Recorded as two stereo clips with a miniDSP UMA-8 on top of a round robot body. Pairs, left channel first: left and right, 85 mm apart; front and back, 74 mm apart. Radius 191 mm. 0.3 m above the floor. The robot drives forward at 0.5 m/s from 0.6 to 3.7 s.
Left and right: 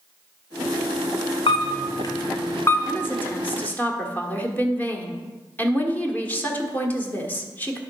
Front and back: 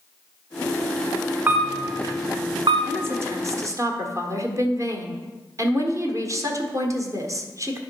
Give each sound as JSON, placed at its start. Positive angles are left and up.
{"t": 1.5, "sound": "a camera shutter", "azimuth_deg": 110, "distance_m": 0.5}
{"t": 2.9, "sound": "a woman speaking", "azimuth_deg": 140, "distance_m": 1.4}